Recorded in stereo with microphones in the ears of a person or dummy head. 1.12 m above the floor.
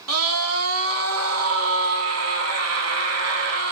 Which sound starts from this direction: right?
A scream, at 0.1 s.